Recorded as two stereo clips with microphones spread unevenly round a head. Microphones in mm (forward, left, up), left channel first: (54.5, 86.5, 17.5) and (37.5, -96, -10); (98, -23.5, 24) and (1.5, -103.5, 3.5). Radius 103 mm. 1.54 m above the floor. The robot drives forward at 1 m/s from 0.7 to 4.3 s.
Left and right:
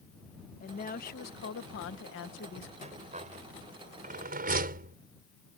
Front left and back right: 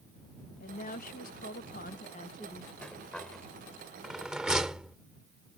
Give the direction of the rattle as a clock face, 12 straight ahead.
1 o'clock.